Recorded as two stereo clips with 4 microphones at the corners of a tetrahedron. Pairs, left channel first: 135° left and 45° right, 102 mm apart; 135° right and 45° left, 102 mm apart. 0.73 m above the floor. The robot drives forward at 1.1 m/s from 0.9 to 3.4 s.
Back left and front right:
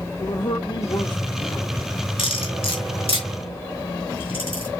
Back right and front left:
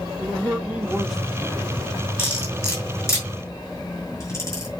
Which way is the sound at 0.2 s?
115° left.